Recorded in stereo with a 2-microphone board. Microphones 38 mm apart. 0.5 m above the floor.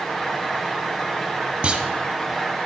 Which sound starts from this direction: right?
A clunk, at 1.6 s.